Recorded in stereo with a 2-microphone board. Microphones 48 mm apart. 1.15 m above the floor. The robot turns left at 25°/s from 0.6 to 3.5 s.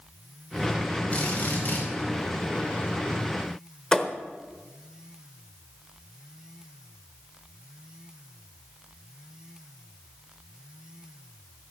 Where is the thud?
15° left (ahead or behind), 1.0 m.